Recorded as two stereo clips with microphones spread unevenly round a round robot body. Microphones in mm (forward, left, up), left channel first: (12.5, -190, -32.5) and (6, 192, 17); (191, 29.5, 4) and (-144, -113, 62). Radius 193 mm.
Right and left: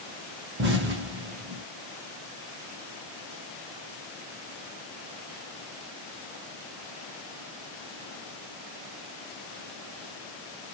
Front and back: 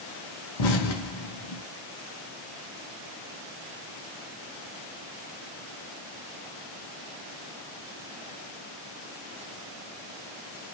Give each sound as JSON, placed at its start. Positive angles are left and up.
{"t": 0.6, "sound": "an explosion", "azimuth_deg": 25, "distance_m": 1.0}